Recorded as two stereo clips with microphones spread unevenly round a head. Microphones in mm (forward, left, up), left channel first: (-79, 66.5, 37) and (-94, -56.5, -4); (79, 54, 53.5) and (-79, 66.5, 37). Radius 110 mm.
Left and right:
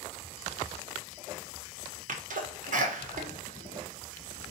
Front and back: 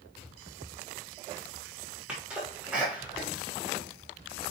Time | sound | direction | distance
2.1 | a sneeze | 100° right | 1.2 m